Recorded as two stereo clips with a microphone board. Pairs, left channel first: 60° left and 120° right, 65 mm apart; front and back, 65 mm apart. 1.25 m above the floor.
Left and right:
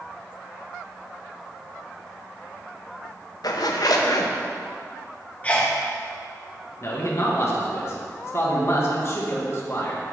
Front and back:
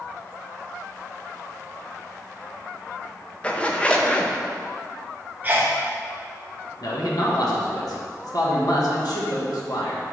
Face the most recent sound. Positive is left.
turn(degrees=15)